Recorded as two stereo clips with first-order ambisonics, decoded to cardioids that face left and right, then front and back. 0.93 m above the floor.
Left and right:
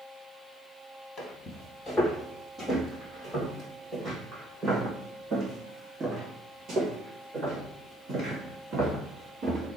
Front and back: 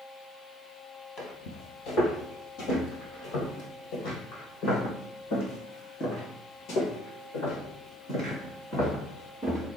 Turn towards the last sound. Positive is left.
turn(degrees=-40)